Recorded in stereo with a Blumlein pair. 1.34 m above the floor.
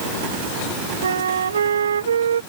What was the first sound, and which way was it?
A flute, 70° right.